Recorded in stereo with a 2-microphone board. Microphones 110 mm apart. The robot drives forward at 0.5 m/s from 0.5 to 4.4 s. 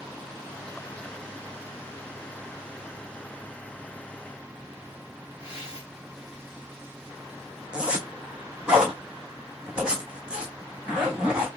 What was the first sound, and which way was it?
Tearing paper, 10° right (ahead or behind).